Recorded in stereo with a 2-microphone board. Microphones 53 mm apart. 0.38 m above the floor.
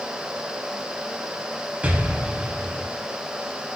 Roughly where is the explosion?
Right.